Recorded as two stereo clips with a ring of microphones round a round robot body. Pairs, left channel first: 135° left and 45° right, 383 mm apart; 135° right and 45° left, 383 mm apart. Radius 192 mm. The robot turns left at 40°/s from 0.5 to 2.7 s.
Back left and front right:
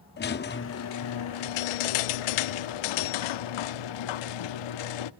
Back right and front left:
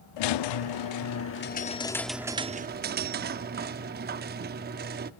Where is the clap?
I don't hear a clap.